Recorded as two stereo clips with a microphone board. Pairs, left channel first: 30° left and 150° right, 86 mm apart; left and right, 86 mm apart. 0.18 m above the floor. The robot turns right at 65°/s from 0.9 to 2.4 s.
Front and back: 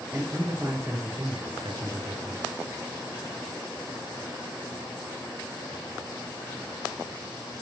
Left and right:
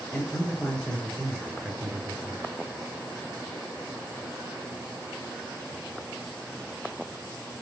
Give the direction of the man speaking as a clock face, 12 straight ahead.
7 o'clock.